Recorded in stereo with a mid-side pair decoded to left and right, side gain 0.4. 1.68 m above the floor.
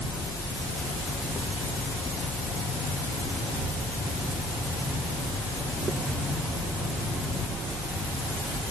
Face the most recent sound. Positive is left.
No sound to turn to.